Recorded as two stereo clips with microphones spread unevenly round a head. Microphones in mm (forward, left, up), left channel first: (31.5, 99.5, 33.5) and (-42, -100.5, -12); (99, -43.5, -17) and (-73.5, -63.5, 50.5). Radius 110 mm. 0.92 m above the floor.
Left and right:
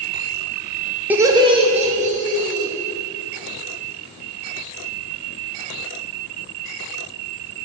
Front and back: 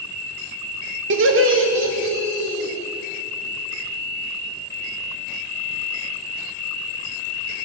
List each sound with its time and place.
1.1 s laughter: straight behind, 0.9 m; by 2.7 s 160° right, 3 m